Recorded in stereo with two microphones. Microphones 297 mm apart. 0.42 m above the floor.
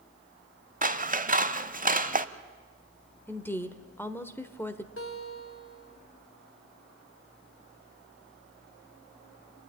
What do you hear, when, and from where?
0.8 s scissors: 30° right (ahead or behind), 0.6 m
3.3 s a woman speaking: 5° left (ahead or behind), 1.1 m
5.0 s a guitar: 45° left (ahead or behind), 2 m